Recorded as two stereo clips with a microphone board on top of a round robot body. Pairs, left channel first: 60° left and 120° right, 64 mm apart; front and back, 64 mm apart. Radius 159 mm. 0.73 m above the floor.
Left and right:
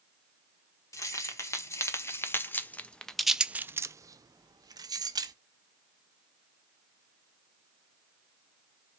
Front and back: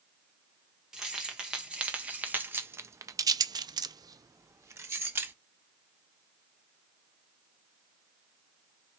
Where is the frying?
No frying in this recording.